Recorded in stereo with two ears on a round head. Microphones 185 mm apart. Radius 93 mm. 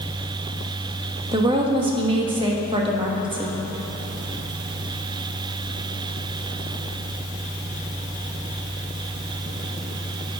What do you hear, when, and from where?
1.3 s a woman speaking: 25° right (ahead or behind), 1.2 m